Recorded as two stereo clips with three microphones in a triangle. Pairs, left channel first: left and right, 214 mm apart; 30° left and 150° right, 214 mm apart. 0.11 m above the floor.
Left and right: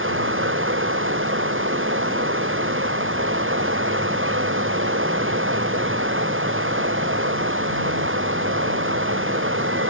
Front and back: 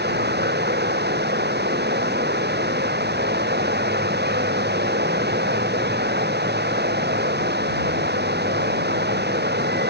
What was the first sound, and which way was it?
Running water, 110° right.